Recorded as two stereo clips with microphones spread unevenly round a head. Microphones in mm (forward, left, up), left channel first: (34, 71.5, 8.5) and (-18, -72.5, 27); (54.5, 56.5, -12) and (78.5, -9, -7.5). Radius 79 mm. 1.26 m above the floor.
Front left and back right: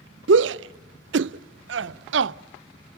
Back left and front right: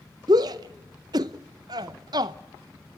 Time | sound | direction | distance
0.3 | a shout | 115° right | 0.5 m